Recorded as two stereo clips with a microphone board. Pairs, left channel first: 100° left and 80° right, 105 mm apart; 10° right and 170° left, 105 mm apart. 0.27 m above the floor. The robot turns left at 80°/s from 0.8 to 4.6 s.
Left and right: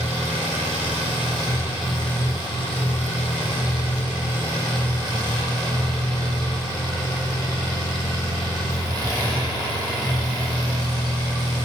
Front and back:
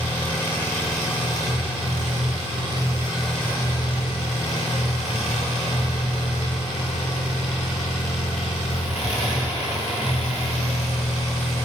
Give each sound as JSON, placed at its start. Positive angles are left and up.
{"t": 0.0, "sound": "an engine running", "azimuth_deg": -85, "distance_m": 2.0}